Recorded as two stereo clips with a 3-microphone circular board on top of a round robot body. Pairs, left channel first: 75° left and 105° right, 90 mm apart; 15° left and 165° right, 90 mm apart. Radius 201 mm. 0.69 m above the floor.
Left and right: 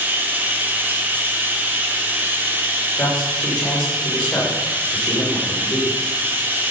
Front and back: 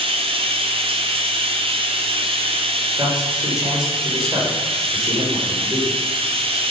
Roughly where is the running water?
Behind.